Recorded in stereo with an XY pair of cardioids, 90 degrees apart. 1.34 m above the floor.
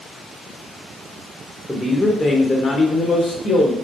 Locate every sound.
1.7 s a man speaking: 10° left, 0.6 m; by 3.8 s 70° left, 1.3 m